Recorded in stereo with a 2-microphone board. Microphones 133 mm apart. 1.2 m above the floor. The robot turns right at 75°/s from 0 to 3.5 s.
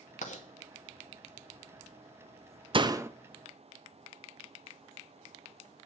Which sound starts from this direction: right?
A door slam, at 2.7 s.